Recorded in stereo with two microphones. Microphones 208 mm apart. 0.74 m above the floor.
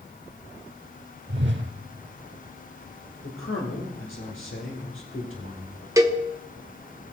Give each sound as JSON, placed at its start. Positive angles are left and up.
{"t": 1.3, "sound": "a whoosh", "side_deg": -60, "distance_m": 0.8}
{"t": 3.2, "sound": "a man speaking", "side_deg": 75, "distance_m": 2.5}
{"t": 6.0, "sound": "a cowbell", "side_deg": -15, "distance_m": 0.8}